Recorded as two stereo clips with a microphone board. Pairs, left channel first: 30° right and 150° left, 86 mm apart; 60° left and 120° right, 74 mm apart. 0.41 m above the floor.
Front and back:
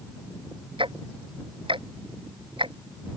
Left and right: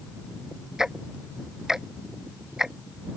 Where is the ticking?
155° left.